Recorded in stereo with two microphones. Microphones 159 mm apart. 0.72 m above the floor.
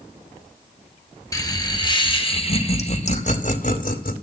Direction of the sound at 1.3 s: 20° left (ahead or behind).